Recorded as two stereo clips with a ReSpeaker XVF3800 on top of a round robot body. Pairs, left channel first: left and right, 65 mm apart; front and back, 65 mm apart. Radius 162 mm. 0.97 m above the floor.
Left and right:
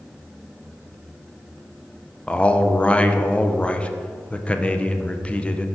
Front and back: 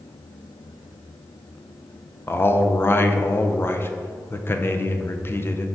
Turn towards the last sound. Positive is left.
turn(degrees=30)